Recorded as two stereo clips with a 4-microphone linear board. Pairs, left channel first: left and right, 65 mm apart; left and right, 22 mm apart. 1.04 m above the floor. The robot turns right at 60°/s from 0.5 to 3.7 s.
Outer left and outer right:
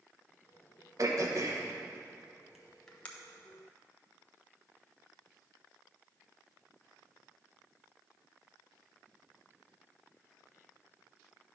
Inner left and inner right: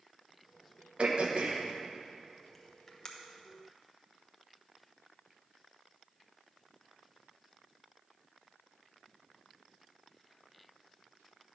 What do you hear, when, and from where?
1.0 s throat clearing: 50° right (ahead or behind), 1.0 m; by 3.1 s 20° left (ahead or behind), 1.0 m